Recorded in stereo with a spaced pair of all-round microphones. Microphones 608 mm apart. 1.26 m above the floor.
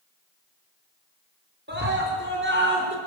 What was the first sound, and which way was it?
A scream, 15° right (ahead or behind).